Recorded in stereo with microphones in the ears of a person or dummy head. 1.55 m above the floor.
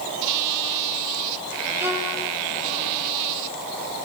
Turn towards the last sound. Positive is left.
turn(degrees=-15)  # may be behind; listen again after turning